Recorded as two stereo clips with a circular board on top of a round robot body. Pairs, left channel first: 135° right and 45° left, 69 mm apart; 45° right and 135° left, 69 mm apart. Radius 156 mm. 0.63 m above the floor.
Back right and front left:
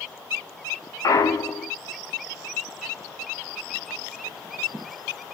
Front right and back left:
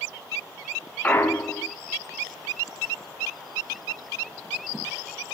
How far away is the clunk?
About 2.5 m.